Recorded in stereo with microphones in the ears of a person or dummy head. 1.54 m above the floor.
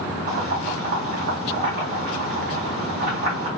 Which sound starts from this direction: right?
Boiling, at 0.3 s.